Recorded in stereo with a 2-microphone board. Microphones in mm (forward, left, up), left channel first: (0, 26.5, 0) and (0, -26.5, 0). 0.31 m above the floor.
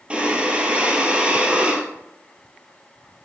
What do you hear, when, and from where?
0.1 s breathing: 20° right (ahead or behind), 1.0 m